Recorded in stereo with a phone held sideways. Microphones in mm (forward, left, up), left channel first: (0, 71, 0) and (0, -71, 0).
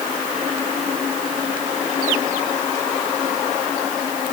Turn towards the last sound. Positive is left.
No sound to turn to.